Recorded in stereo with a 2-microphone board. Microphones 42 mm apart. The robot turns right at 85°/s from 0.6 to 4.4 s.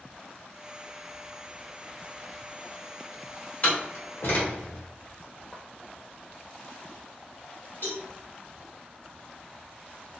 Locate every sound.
3.6 s a door slam: 35° left (ahead or behind), 1.2 m; by 4.9 s 60° left (ahead or behind), 1.2 m
5.5 s footsteps: 20° left (ahead or behind), 0.6 m
7.8 s a cowbell: 60° left (ahead or behind), 1.4 m